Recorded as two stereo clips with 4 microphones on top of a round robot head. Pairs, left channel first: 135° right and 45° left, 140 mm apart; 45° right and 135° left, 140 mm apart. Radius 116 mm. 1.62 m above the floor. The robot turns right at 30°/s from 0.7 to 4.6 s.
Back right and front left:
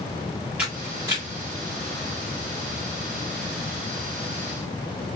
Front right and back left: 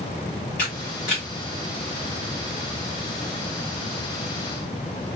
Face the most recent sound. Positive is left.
turn(degrees=90)